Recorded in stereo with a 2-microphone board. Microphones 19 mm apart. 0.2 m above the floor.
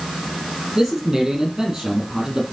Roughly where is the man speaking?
Right.